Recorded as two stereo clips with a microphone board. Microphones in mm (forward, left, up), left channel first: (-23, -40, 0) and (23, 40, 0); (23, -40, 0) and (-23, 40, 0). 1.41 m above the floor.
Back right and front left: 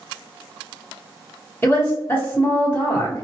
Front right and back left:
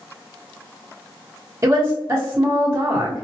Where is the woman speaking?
170° left, 1.2 m.